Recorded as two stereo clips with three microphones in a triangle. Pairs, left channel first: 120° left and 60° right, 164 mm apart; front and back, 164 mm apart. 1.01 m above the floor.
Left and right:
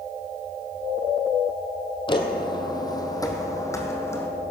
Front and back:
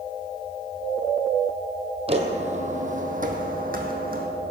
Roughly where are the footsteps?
Behind.